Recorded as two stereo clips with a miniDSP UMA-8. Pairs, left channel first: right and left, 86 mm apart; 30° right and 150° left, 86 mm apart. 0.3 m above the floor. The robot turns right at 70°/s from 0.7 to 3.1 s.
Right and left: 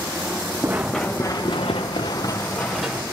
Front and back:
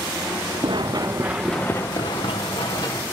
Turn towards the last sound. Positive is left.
turn(degrees=25)